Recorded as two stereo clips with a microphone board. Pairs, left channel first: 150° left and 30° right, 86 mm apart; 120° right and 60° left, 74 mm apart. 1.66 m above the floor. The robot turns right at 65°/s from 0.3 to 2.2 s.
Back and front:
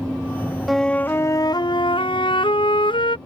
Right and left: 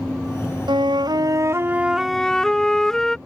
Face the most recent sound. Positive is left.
turn(degrees=155)